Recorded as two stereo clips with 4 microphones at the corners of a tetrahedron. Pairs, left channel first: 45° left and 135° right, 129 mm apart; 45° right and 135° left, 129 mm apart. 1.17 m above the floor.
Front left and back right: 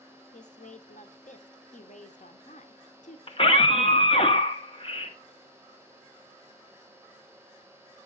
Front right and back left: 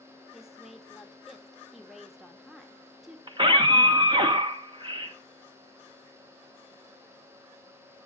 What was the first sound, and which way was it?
A woman speaking, 45° left.